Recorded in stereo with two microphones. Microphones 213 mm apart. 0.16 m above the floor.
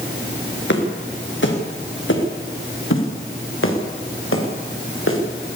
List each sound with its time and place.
0.7 s footsteps: 65° left (ahead or behind), 5.5 m; by 5.2 s 90° left, 6 m